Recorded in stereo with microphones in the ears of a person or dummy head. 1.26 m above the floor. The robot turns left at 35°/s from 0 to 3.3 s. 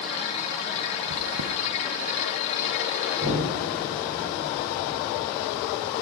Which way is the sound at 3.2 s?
35° right (ahead or behind).